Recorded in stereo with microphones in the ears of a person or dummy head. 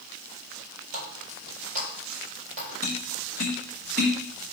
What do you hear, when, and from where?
0.9 s a running tap: 45° right (ahead or behind), 4.5 m
2.8 s tapping: 55° right (ahead or behind), 3.5 m